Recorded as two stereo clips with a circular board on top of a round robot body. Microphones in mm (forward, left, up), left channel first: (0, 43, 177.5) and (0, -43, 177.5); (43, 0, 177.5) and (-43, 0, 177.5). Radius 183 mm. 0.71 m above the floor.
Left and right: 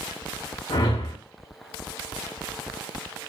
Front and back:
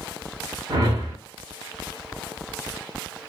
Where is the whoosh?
135° left, 0.5 m.